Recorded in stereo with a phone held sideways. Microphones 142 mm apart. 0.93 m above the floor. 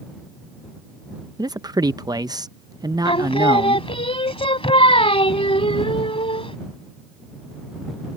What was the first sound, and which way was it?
A man speaking, 30° right (ahead or behind).